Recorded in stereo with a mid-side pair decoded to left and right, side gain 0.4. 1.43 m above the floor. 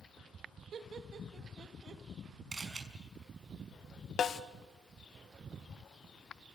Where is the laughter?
55° right, 2 m.